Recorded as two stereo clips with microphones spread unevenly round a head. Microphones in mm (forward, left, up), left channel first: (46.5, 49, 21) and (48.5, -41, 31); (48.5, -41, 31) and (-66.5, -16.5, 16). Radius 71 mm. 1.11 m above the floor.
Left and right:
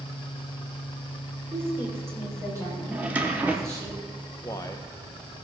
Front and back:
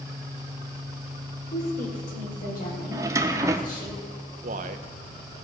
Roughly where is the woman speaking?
Ahead right.